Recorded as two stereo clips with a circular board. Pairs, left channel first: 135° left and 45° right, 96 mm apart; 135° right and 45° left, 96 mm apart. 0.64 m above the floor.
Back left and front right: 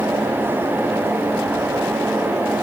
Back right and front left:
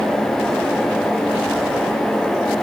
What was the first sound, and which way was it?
Only background noise.